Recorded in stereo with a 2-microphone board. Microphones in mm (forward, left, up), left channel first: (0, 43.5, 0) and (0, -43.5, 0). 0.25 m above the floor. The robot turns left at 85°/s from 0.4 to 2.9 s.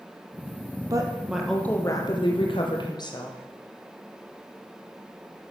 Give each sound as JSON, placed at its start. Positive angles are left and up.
{"t": 0.9, "sound": "a woman speaking", "azimuth_deg": -135, "distance_m": 7.0}